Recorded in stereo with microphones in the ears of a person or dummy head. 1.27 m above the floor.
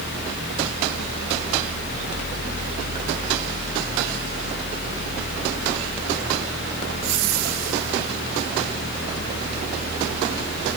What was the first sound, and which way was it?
Only background noise.